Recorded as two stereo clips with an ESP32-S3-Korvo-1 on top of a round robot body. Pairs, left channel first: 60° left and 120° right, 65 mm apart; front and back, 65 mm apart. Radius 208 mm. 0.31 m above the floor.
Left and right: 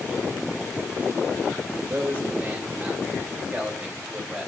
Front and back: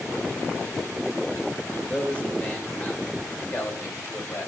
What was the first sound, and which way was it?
A man speaking, 65° right.